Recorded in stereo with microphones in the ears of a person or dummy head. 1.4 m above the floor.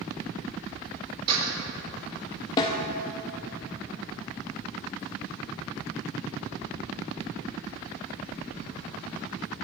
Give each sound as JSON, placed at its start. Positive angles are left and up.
{"t": 1.3, "sound": "a door slam", "side_deg": -30, "distance_m": 4.0}
{"t": 2.6, "sound": "a snare drum", "side_deg": 20, "distance_m": 0.8}